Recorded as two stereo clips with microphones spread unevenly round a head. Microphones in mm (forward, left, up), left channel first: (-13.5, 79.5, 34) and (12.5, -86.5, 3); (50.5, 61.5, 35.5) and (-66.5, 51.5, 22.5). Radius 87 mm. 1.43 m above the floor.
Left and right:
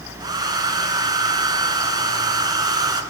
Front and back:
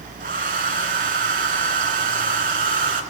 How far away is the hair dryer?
About 2.5 m.